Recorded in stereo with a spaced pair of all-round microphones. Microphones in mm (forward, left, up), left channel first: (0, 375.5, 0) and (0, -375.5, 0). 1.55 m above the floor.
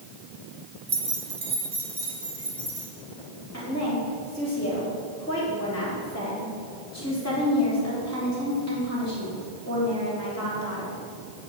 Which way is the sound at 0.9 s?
55° right (ahead or behind).